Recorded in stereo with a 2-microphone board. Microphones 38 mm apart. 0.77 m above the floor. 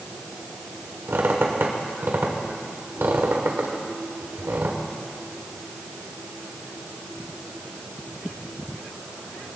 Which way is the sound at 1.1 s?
75° right (ahead or behind).